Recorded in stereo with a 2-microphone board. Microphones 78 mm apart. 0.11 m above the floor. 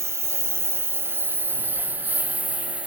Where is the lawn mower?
35° right (ahead or behind); by 2.9 s 15° right (ahead or behind).